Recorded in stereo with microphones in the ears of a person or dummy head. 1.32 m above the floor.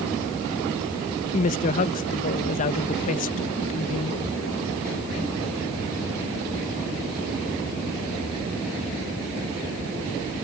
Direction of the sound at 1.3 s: 40° left (ahead or behind).